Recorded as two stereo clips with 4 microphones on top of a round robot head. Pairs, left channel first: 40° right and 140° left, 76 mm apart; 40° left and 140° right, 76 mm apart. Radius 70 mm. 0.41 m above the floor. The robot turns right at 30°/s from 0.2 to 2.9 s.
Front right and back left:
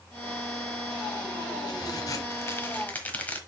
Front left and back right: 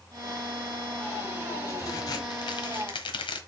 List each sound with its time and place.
1.7 s a crack: 10° right, 1.2 m; by 3.4 s 30° left, 1.2 m